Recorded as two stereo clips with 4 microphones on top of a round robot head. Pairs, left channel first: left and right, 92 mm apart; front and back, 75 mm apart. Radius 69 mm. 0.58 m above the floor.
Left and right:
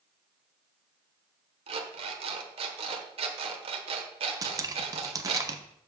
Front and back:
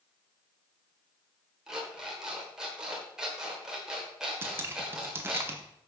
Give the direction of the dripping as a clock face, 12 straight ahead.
4 o'clock.